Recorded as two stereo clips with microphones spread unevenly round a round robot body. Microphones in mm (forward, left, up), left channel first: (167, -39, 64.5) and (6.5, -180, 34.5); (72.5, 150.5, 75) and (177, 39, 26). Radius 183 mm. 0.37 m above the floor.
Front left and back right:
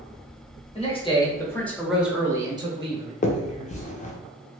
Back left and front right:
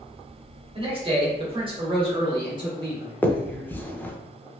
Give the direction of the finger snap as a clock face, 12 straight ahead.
11 o'clock.